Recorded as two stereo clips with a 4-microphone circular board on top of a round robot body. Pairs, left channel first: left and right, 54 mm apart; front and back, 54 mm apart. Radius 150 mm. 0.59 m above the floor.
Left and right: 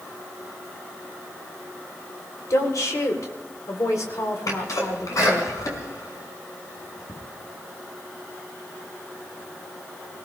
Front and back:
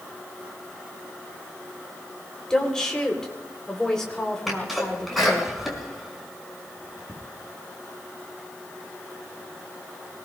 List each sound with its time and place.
2.5 s a woman speaking: 80° left, 3 m
4.5 s a sneeze: 90° left, 6 m